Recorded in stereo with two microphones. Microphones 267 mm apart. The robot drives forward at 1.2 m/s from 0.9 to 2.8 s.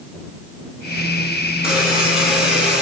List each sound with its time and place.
1.6 s a buzzer: centre (ahead or behind), 8 m; by 2.8 s 5° right (ahead or behind), 6.5 m